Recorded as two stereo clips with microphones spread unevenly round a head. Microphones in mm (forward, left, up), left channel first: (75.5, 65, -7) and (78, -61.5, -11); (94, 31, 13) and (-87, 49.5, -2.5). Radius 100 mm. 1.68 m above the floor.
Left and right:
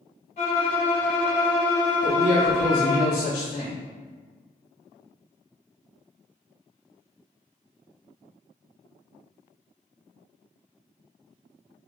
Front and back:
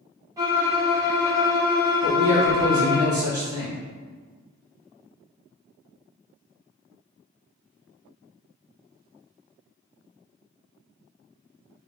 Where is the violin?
100° left, 1.3 m.